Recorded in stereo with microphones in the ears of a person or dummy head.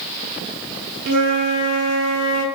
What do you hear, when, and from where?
1.1 s a flute: 40° right (ahead or behind), 1.1 m